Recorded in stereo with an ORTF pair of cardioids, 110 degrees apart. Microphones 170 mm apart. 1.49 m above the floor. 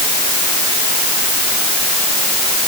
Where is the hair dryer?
I don't hear a hair dryer.